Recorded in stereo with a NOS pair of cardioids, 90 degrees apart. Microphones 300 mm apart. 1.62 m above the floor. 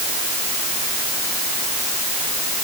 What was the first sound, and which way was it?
Only background noise.